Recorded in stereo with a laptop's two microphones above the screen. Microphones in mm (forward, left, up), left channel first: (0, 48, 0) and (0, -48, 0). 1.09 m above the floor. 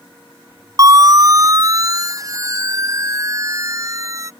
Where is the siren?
40° right (ahead or behind); by 4.3 s 35° right (ahead or behind).